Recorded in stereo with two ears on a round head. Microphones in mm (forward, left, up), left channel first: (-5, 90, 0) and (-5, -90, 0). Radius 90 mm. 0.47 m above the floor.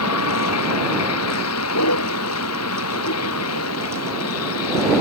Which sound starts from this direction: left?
A vehicle, at 0.0 s.